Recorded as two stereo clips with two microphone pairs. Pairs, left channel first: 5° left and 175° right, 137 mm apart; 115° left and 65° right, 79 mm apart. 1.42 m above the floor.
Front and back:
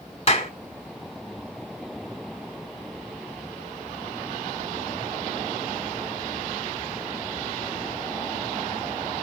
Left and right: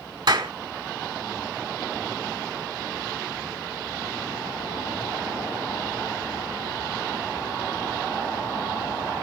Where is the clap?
40° right, 2.0 m.